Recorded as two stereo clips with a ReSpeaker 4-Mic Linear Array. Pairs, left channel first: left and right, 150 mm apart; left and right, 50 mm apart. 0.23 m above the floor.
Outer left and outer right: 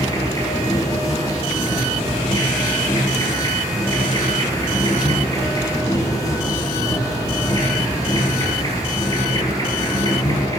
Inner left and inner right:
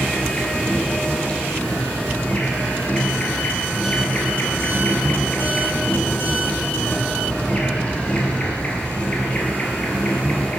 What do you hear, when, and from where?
0.0 s an insect: 25° left (ahead or behind), 1.9 m